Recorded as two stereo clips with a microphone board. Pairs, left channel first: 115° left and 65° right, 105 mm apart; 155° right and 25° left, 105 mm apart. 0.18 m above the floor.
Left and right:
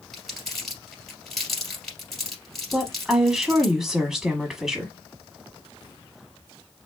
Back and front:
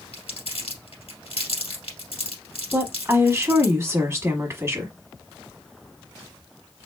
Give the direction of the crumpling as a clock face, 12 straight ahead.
5 o'clock.